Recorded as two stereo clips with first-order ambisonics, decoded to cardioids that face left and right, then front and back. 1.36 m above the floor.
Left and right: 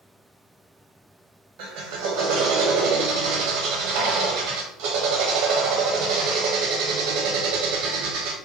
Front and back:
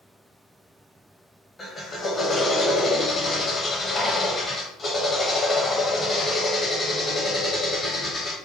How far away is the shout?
I don't hear a shout.